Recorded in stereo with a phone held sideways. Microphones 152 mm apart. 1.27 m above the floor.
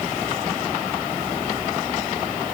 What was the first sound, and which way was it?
Only background noise.